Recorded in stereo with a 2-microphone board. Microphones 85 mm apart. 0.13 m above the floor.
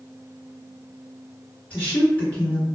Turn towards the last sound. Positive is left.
turn(degrees=15)  # may be behind; listen again after turning